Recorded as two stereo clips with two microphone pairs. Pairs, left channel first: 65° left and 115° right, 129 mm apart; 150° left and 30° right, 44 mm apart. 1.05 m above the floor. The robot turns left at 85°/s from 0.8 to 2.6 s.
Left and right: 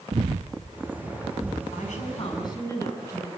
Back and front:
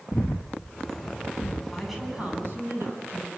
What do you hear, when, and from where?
0.1 s breathing: 155° right, 0.6 m; by 1.6 s 135° left, 0.6 m
1.7 s a woman speaking: 75° left, 9 m; by 3.3 s straight ahead, 9 m